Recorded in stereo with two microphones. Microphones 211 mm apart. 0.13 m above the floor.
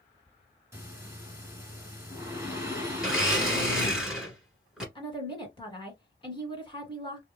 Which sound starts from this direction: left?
A woman speaking, at 5.0 s.